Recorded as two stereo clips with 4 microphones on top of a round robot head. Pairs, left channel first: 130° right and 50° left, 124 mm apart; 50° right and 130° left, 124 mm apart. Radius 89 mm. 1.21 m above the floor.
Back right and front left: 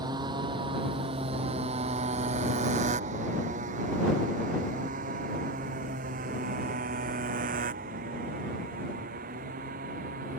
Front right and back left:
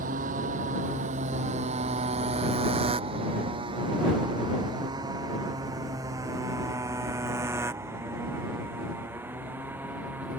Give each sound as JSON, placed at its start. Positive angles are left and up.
{"t": 0.0, "sound": "a motorcycle", "azimuth_deg": 110}